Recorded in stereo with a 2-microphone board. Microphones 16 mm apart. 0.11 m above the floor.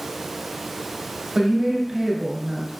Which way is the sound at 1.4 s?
30° right (ahead or behind).